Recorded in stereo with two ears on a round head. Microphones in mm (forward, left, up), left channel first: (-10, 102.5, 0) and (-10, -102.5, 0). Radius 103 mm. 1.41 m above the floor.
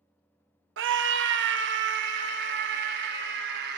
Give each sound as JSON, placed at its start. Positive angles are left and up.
{"t": 0.8, "sound": "a scream", "side_deg": -55, "distance_m": 0.9}